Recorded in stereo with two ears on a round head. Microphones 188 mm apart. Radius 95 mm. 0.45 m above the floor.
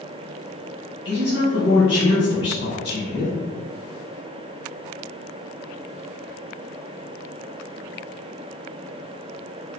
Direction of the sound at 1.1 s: 55° left (ahead or behind).